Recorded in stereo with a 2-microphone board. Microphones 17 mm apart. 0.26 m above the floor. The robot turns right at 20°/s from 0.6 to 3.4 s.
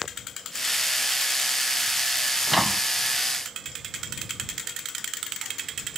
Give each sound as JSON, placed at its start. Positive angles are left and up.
{"t": 2.5, "sound": "a microwave", "side_deg": 0}